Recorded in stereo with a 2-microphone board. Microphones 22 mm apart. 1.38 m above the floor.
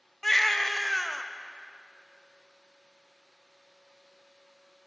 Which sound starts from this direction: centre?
A baby crying, at 0.2 s.